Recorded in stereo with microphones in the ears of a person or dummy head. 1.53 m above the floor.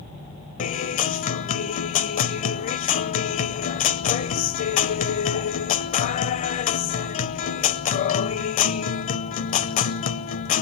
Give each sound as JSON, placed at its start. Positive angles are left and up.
{"t": 0.6, "sound": "a guitar", "side_deg": 40, "distance_m": 0.7}